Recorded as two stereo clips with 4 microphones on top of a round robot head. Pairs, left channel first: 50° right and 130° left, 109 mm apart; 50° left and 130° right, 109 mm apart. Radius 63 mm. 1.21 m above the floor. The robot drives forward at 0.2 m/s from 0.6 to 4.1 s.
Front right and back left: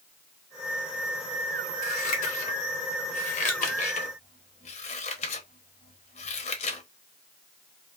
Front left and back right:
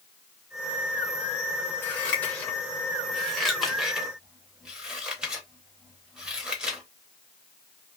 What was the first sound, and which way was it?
Scissors, 25° right.